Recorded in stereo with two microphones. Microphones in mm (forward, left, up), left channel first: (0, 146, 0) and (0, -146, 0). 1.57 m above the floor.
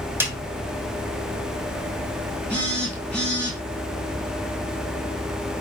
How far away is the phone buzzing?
About 2.5 m.